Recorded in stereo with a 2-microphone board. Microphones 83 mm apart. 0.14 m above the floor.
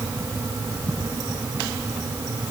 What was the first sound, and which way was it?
Only background noise.